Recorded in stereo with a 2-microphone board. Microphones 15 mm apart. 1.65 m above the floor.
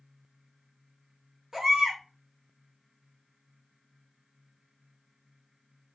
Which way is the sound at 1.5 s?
35° right (ahead or behind).